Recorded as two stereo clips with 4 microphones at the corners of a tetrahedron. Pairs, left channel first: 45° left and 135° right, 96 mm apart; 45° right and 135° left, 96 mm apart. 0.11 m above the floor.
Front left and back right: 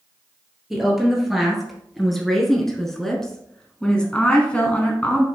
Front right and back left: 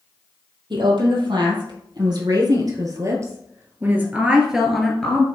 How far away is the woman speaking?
About 3 m.